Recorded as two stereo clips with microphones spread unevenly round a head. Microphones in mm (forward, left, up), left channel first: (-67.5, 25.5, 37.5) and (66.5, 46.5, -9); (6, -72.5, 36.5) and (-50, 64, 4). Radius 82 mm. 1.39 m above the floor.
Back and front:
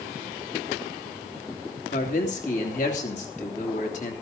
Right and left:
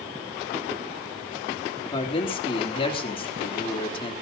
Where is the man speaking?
125° right, 3.5 m.